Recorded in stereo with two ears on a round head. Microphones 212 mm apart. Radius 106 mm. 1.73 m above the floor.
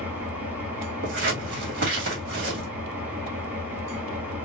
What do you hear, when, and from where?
0.0 s an engine running: 5° right (ahead or behind), 2.0 m
1.0 s scissors: 50° right (ahead or behind), 1.8 m